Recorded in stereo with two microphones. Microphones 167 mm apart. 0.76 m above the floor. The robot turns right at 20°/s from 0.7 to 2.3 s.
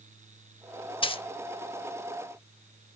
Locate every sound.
1.0 s a dropped coin: 30° left (ahead or behind), 0.6 m; by 1.2 s 35° left (ahead or behind), 0.6 m